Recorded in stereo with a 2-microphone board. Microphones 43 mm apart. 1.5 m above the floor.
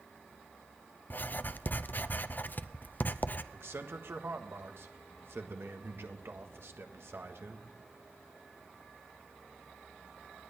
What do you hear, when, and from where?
1.1 s writing: 50° left (ahead or behind), 0.6 m
3.5 s a man speaking: 75° right (ahead or behind), 1.5 m